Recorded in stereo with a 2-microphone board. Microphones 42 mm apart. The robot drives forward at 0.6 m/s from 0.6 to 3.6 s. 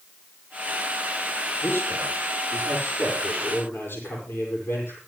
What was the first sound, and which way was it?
A man speaking, 70° left (ahead or behind).